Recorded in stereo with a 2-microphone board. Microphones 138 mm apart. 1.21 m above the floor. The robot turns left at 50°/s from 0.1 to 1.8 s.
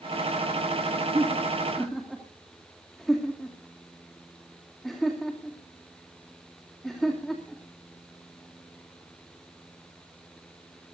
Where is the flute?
I don't hear a flute.